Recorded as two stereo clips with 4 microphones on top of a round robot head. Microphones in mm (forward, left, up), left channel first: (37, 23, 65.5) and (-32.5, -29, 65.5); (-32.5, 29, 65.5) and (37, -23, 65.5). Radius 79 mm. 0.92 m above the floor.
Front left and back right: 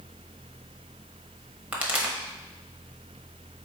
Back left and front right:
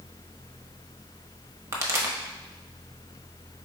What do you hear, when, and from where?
1.7 s a pop: 75° right, 0.9 m